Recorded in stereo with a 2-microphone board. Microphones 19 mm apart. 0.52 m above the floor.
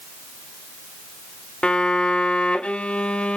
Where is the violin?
80° left, 0.8 m.